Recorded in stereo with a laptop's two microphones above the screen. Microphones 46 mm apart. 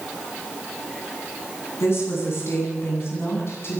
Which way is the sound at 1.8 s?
65° left (ahead or behind).